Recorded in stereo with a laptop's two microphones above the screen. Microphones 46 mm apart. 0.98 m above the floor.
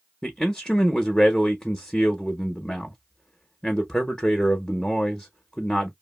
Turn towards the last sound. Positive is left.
turn(degrees=10)  # may be behind; listen again after turning